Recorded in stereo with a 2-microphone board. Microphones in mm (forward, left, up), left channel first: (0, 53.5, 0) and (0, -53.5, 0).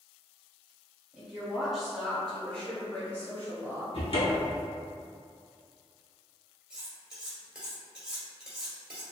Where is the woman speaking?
10° right (ahead or behind), 1.7 m; by 3.8 s 25° left (ahead or behind), 1.4 m.